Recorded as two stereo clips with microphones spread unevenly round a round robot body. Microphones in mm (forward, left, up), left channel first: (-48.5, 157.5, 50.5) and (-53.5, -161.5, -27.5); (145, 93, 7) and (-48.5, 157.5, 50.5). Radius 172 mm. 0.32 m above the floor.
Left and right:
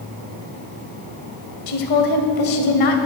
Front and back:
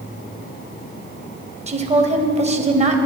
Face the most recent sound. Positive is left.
turn(degrees=100)